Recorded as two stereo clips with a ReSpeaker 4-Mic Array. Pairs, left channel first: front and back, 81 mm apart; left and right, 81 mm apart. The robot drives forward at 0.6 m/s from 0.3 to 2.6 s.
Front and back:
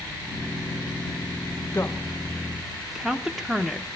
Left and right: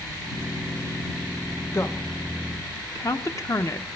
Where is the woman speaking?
50° left, 0.9 m; by 3.9 s 95° left, 0.7 m.